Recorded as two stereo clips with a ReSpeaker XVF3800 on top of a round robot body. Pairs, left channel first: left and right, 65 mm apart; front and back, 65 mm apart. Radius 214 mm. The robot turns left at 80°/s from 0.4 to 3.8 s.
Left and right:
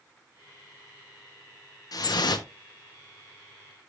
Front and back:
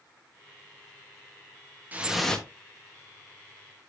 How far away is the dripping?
About 1.0 m.